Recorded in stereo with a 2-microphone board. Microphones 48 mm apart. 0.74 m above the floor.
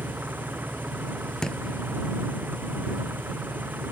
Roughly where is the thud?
Centre.